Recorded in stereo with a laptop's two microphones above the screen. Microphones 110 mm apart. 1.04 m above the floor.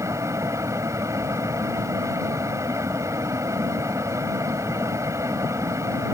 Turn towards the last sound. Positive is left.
turn(degrees=-25)  # may be behind; listen again after turning